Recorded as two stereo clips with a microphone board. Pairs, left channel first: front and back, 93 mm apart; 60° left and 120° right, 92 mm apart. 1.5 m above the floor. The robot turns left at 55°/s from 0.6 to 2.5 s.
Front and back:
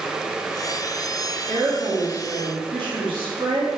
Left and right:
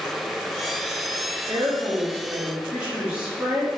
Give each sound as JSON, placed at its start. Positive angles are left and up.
{"t": 1.5, "sound": "a woman speaking", "azimuth_deg": -140, "distance_m": 1.3}